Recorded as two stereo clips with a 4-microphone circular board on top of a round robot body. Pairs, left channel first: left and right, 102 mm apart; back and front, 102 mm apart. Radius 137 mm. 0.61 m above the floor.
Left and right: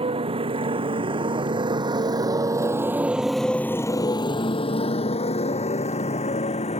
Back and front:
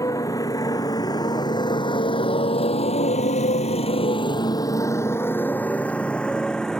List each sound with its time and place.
0.0 s a motorcycle: 120° right; by 6.8 s 95° left